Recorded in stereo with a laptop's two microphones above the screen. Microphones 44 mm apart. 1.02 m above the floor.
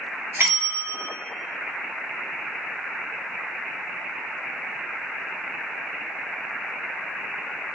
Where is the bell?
65° right (ahead or behind), 1.9 m.